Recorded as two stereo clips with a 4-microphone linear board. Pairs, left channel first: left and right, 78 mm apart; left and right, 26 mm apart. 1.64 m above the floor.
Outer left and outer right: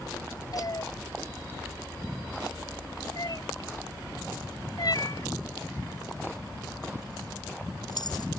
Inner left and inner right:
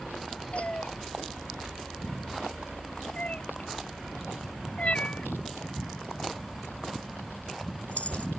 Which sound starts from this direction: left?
A cat meowing, at 0.5 s.